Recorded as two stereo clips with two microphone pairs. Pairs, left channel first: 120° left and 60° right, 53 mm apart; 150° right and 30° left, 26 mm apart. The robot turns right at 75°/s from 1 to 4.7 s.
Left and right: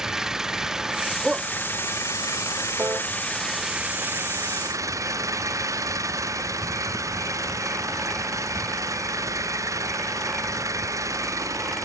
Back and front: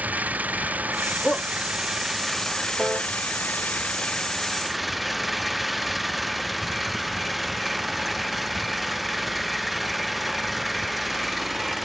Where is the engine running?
20° left; by 11.8 s 60° right.